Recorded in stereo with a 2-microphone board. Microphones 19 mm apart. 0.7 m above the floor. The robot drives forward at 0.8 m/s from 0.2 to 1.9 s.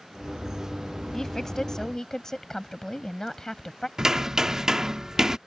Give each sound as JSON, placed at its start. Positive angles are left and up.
{"t": 1.1, "sound": "a woman speaking", "side_deg": 25}
{"t": 4.0, "sound": "hammering", "side_deg": -30}